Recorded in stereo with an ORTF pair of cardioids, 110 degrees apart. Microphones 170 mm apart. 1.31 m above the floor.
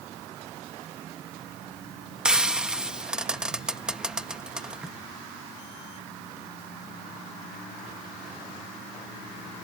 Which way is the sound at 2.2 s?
5° right.